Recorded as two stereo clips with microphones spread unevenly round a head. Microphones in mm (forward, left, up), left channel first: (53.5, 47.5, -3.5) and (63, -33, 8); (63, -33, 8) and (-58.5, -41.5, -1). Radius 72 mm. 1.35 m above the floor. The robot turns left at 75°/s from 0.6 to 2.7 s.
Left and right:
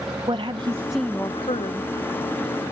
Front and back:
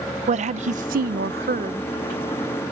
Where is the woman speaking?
145° right; by 1.9 s 120° left.